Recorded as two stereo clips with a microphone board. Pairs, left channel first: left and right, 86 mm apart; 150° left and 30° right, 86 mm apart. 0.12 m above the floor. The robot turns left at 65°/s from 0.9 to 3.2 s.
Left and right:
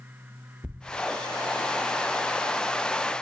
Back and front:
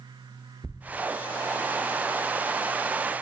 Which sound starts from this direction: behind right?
A thud, at 0.6 s.